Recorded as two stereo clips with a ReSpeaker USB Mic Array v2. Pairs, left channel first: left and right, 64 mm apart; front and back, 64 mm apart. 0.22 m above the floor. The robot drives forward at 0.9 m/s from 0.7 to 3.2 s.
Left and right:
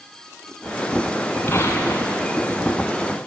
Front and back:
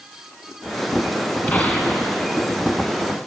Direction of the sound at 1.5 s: 55° left.